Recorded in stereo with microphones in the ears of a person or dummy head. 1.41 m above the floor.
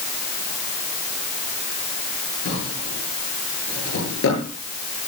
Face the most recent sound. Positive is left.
turn(degrees=80)